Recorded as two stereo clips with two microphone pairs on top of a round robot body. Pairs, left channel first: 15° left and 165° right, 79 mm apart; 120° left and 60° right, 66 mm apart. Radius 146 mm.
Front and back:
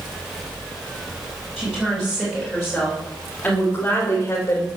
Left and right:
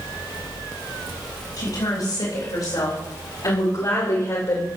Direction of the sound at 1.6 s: 110° left.